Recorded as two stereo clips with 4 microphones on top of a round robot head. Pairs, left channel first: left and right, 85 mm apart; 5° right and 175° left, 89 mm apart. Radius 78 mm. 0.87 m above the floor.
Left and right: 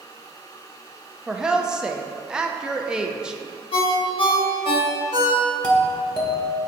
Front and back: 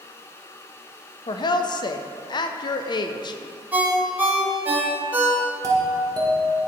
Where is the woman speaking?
10° right, 0.5 m.